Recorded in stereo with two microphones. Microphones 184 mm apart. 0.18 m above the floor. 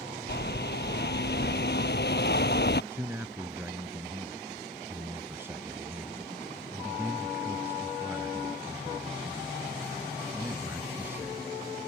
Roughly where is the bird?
Left.